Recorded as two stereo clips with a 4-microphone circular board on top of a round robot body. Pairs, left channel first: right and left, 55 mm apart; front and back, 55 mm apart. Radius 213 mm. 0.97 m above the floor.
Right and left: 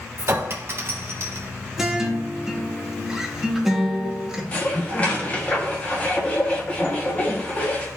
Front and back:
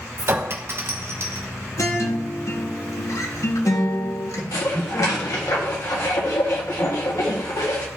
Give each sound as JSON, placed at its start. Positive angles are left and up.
{"t": 0.2, "sound": "a clink", "azimuth_deg": 135, "distance_m": 0.8}
{"t": 1.8, "sound": "a guitar", "azimuth_deg": 10, "distance_m": 1.5}
{"t": 4.5, "sound": "dishes clattering", "azimuth_deg": -25, "distance_m": 1.4}